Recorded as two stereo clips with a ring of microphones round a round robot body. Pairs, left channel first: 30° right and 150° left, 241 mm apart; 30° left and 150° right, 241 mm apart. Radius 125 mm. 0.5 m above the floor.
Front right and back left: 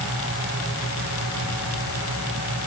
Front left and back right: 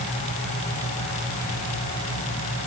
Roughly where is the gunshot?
No gunshot in this recording.